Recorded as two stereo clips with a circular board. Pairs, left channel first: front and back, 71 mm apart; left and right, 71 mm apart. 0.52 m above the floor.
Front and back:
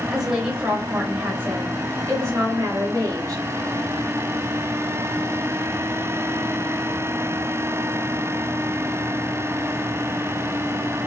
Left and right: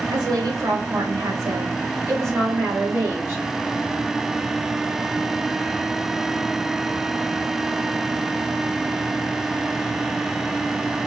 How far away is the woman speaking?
About 2.5 m.